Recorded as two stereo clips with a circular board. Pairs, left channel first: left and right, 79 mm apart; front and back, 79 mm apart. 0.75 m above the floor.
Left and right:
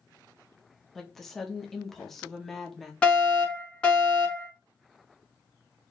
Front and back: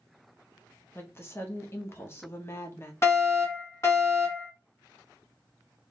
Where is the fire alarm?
25° left, 1.7 m.